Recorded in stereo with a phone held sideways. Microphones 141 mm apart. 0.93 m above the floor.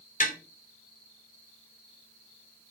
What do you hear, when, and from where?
0.2 s tapping: 70° left (ahead or behind), 2.5 m